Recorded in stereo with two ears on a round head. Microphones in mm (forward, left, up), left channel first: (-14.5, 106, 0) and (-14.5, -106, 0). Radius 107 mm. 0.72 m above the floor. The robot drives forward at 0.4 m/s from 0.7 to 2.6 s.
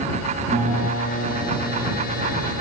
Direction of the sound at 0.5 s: 40° right (ahead or behind).